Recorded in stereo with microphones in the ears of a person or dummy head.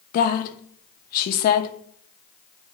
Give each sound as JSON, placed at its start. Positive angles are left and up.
{"t": 0.1, "sound": "a woman speaking", "side_deg": 45, "distance_m": 0.6}